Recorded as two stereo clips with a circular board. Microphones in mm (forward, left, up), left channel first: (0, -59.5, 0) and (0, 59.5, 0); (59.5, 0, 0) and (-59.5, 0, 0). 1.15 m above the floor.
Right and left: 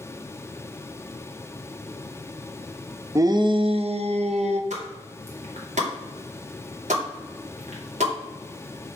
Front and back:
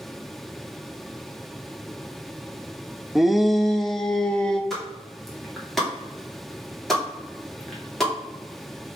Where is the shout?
100° left, 0.5 m; by 4.6 s 85° left, 1.4 m.